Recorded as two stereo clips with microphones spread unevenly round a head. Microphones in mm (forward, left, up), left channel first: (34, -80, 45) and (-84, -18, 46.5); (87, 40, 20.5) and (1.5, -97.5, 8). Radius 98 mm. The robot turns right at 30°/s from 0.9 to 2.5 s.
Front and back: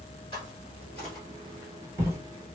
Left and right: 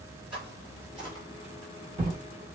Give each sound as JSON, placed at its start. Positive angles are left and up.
{"t": 0.3, "sound": "footsteps", "azimuth_deg": -70, "distance_m": 1.9}